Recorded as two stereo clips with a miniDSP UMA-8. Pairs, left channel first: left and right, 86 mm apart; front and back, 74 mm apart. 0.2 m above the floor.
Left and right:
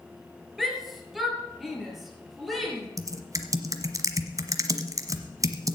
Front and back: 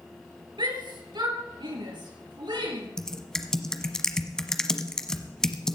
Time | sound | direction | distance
0.6 | a shout | 175° right | 3 m
3.0 | typing on a keyboard | 80° right | 1.1 m